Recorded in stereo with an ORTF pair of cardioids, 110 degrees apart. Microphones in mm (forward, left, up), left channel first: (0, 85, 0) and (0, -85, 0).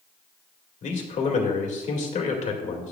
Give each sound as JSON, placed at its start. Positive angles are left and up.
{"t": 0.8, "sound": "a man speaking", "azimuth_deg": 45, "distance_m": 2.0}